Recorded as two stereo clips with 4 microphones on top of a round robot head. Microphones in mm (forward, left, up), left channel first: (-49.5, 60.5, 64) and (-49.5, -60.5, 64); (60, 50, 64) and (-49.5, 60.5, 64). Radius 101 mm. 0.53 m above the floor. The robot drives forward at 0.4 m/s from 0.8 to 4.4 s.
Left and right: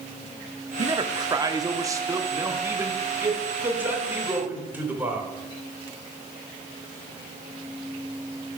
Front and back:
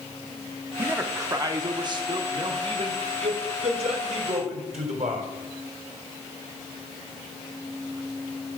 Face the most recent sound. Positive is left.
turn(degrees=-165)